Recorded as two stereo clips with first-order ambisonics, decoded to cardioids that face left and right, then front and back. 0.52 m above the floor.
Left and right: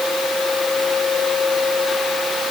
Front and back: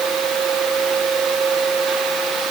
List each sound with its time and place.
Only background noise.